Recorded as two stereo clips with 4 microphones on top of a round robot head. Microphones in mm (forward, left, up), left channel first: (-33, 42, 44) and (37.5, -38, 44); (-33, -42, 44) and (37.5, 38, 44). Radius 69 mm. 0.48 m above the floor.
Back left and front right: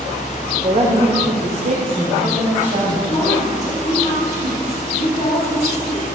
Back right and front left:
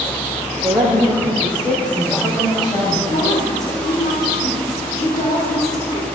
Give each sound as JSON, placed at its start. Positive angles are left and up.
{"t": 0.6, "sound": "a woman speaking", "azimuth_deg": -25, "distance_m": 1.9}
{"t": 3.1, "sound": "a woman speaking", "azimuth_deg": -175, "distance_m": 2.5}